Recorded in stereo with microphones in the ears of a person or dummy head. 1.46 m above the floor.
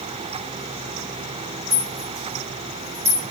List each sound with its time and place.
1.7 s a rattle: 35° right (ahead or behind), 3.5 m